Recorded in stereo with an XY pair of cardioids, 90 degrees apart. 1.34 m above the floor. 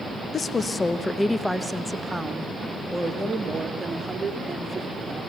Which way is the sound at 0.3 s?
45° left.